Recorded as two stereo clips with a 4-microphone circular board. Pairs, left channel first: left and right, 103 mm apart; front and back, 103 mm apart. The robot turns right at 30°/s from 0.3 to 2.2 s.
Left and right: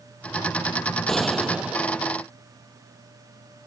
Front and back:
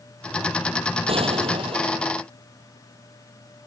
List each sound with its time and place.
1.1 s a gunshot: 175° left; by 2.1 s 155° right